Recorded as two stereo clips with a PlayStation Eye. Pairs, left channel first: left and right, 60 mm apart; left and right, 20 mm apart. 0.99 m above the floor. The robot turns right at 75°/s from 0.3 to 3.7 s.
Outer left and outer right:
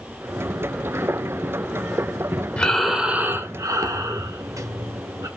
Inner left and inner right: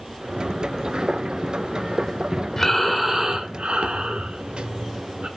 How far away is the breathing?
About 1.5 m.